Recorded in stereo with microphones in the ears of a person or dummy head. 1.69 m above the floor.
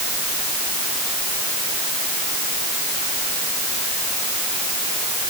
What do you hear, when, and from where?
Only background noise.